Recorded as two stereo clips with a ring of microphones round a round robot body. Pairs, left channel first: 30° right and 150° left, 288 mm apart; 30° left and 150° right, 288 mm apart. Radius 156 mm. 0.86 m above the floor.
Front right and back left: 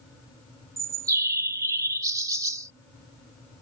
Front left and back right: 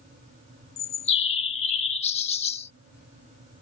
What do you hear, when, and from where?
0.8 s a bird: 80° left